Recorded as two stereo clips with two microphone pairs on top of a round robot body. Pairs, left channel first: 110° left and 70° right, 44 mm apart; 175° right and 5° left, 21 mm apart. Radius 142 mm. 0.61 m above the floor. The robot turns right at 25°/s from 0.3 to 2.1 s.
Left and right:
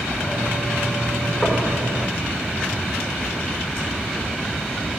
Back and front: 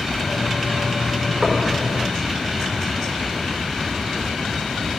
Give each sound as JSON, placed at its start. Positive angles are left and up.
{"t": 1.4, "sound": "knocking", "azimuth_deg": 55, "distance_m": 1.5}